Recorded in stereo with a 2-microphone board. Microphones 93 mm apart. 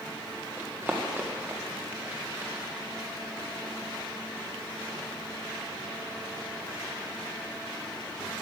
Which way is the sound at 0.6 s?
15° right (ahead or behind).